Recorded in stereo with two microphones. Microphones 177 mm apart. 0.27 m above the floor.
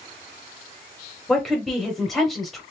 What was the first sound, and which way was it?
A woman speaking, centre (ahead or behind).